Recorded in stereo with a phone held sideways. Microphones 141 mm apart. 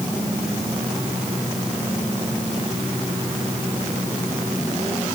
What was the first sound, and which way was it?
Only background noise.